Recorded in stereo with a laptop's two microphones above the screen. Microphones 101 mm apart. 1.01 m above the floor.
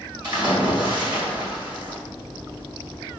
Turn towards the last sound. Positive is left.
turn(degrees=-50)  # may be behind; listen again after turning